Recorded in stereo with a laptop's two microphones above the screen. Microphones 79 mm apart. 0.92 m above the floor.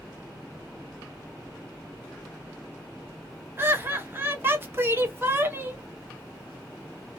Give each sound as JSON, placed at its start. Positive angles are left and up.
{"t": 3.6, "sound": "laughter", "side_deg": -30, "distance_m": 0.9}